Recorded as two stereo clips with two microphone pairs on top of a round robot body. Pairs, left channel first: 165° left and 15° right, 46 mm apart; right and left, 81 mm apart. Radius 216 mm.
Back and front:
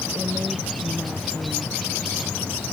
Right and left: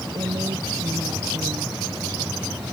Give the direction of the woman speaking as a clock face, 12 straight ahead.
10 o'clock.